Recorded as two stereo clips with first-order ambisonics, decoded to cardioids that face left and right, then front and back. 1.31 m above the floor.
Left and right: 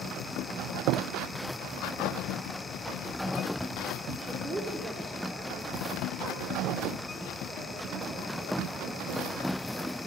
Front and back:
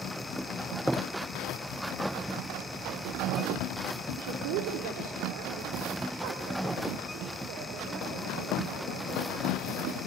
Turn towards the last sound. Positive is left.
turn(degrees=-155)